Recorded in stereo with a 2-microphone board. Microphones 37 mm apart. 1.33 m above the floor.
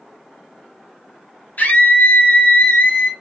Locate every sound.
1.6 s a scream: 55° left (ahead or behind), 1.3 m